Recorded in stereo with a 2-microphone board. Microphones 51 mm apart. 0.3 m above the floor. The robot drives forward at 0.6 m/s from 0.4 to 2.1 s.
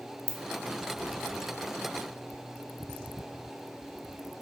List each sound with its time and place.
0.3 s a ringtone: 65° right (ahead or behind), 0.5 m